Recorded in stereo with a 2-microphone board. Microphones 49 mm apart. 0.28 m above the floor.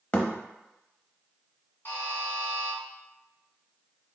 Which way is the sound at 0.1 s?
30° left (ahead or behind).